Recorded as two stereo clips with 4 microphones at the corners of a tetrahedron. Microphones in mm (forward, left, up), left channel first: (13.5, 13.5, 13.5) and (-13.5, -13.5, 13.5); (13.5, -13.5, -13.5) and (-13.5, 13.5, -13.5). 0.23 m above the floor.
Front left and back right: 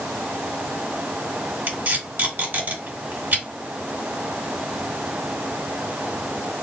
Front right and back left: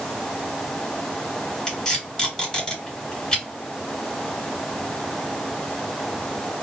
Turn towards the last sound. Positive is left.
turn(degrees=-120)